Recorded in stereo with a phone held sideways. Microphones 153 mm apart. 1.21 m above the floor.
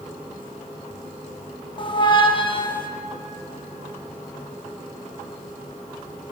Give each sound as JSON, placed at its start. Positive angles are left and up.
{"t": 1.8, "sound": "a squeak", "side_deg": 35, "distance_m": 0.8}